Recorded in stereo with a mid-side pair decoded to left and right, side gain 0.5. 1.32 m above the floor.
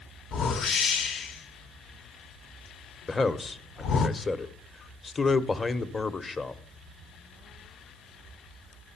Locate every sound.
0.3 s a whoosh: 55° left, 1.0 m
3.1 s a man speaking: 25° left, 1.0 m